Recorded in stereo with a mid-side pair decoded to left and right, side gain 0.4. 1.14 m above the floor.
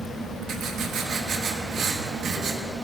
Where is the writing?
70° right, 1.2 m.